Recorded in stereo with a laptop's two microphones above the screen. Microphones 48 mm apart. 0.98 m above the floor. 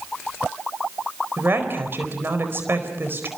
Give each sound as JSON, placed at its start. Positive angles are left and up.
{"t": 1.4, "sound": "a woman speaking", "side_deg": -50, "distance_m": 4.5}